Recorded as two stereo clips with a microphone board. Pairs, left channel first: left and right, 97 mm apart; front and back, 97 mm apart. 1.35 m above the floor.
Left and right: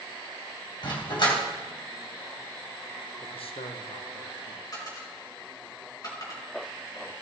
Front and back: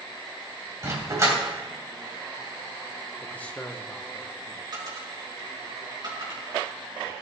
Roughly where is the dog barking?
Behind left.